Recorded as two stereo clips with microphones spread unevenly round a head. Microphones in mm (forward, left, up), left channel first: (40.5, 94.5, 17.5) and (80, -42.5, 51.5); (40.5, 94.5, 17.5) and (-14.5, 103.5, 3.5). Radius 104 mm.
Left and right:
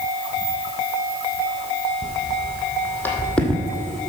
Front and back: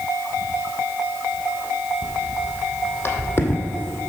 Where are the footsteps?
40° left, 3 m; by 4.1 s 5° right, 1.5 m.